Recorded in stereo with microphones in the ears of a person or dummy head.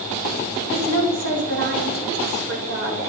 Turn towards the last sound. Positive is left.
turn(degrees=-80)